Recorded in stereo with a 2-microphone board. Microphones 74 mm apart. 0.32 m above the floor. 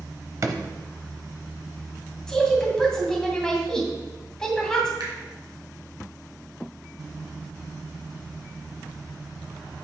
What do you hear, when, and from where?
0.4 s a drawer: 50° right (ahead or behind), 0.7 m
2.3 s a woman speaking: 10° left (ahead or behind), 2 m
5.0 s a finger snap: 75° right (ahead or behind), 2.5 m